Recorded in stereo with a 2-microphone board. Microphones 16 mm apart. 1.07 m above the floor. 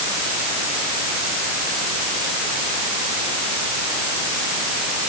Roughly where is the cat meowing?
I don't hear a cat meowing.